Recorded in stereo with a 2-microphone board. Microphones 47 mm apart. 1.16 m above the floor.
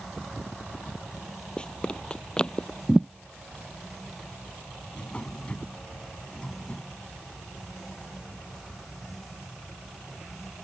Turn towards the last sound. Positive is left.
turn(degrees=25)  # may be behind; listen again after turning